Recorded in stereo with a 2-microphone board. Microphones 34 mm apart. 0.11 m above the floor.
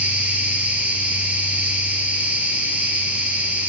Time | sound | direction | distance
0.0 | an insect | 55° right (ahead or behind) | 5 m